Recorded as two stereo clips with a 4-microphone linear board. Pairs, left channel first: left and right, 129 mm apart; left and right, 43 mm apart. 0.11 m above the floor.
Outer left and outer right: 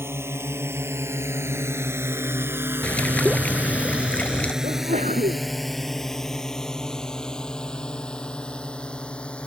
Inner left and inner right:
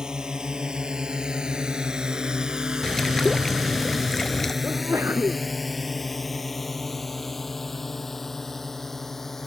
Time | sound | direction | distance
0.0 | a drone | 20° right (ahead or behind) | ?
2.8 | a bird | 10° left (ahead or behind) | ?
4.6 | a sneeze | 70° right (ahead or behind) | ?